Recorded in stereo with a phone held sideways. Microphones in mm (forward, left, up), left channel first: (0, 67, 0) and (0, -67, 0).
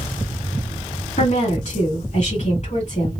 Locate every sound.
1.2 s a woman speaking: 55° left (ahead or behind), 2 m